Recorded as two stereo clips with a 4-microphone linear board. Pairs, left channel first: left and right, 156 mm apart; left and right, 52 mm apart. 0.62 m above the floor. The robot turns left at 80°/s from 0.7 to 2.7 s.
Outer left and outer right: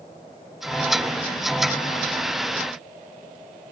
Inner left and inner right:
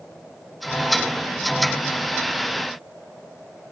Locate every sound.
Only background noise.